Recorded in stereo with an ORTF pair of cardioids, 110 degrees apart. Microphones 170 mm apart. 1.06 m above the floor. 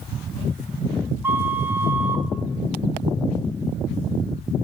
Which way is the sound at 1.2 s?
10° right.